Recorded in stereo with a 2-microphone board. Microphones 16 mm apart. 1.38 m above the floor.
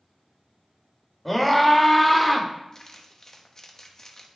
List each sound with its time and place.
1.2 s a scream: 10° left (ahead or behind), 2 m; by 2.5 s 5° left (ahead or behind), 1.6 m
2.7 s crumpling: 35° left (ahead or behind), 1.1 m